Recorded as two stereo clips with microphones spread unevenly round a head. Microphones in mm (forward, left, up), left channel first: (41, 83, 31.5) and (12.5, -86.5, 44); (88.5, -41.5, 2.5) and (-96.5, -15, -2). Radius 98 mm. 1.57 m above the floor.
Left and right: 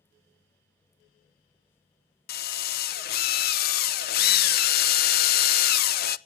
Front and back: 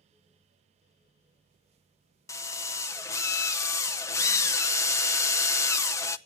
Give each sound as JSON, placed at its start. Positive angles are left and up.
{"t": 2.3, "sound": "a drill", "azimuth_deg": 60, "distance_m": 0.6}